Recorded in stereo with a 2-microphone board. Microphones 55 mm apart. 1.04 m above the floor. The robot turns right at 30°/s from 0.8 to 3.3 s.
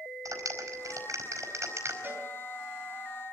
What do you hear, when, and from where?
0.2 s a clap: 90° right, 4.5 m; by 1.9 s 55° right (ahead or behind), 4.5 m
2.0 s a cowbell: 35° right (ahead or behind), 5 m; by 2.3 s 40° right (ahead or behind), 5 m